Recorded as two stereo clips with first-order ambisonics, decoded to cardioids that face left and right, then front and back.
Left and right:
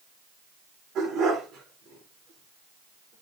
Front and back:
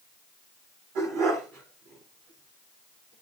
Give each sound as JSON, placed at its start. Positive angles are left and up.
{"t": 0.9, "sound": "a dog barking", "azimuth_deg": -145, "distance_m": 8.0}